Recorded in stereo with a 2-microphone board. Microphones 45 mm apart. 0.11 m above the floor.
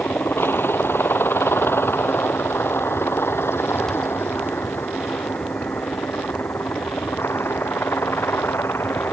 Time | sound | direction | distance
0.0 | a helicopter | 60° left (ahead or behind) | ?